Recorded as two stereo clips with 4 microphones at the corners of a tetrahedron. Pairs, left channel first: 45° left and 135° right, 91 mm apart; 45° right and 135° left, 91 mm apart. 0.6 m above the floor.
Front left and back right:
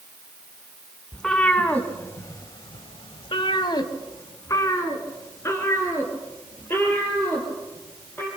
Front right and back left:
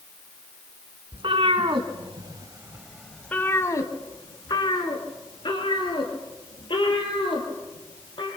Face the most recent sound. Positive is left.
turn(degrees=-20)